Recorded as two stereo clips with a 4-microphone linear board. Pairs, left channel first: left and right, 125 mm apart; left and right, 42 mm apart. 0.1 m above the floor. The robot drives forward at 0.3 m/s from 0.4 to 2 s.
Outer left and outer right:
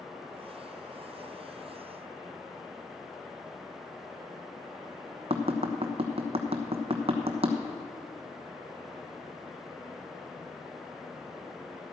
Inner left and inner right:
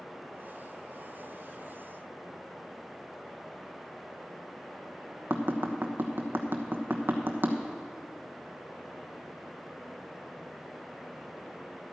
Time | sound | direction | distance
5.3 | tapping | 55° right (ahead or behind) | 1.2 m